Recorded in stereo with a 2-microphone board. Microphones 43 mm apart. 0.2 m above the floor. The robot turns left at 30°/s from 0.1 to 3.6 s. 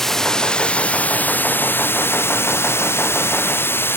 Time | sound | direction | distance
0.0 | running water | 170° left | ?